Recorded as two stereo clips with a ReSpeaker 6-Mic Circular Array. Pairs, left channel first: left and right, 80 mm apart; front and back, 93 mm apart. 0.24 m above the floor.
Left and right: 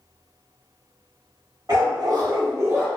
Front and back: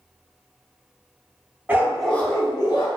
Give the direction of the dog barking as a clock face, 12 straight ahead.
4 o'clock.